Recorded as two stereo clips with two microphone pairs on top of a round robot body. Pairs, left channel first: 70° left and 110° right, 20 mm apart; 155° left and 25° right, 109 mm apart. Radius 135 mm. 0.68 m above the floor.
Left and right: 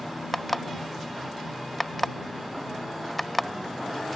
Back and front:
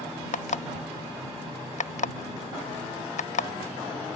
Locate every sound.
0.3 s an alarm clock: 150° left